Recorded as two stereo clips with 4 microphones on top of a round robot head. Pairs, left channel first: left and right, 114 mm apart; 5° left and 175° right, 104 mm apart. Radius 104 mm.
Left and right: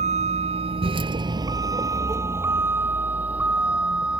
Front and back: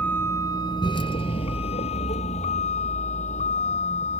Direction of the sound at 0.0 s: 75° right.